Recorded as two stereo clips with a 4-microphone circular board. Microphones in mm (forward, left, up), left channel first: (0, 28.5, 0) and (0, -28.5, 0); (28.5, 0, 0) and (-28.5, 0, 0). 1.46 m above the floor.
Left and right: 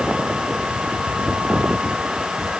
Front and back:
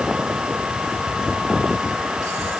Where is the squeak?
I don't hear a squeak.